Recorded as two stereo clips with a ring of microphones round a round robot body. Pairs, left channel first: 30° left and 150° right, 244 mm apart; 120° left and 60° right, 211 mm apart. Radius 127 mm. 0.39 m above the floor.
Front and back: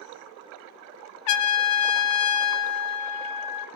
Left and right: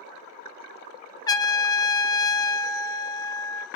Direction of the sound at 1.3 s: 45° left.